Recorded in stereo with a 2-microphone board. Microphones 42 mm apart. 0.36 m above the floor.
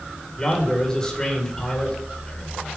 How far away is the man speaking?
About 1.4 m.